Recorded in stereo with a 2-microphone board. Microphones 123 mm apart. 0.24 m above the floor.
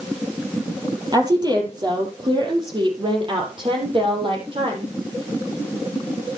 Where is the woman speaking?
35° right (ahead or behind), 6 m; by 4.9 s 45° right (ahead or behind), 9 m.